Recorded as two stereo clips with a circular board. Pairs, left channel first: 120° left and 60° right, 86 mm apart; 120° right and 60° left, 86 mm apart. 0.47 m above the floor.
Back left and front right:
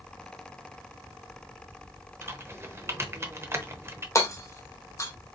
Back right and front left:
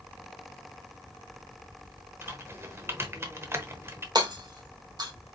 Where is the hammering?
75° left, 1.2 m.